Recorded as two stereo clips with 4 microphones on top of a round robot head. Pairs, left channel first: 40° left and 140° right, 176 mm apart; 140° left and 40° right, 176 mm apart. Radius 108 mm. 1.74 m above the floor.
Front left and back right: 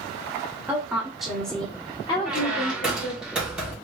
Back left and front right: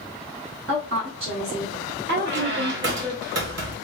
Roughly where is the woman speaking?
Ahead right.